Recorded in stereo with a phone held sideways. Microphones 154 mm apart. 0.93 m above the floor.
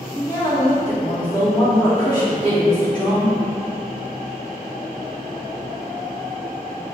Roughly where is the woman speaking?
Left.